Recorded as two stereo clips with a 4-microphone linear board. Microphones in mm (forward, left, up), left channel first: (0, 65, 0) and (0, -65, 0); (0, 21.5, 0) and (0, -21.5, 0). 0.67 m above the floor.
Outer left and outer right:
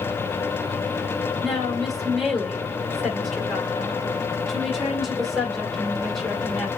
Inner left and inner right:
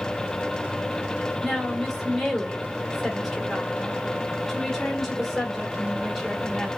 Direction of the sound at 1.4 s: Centre (ahead or behind).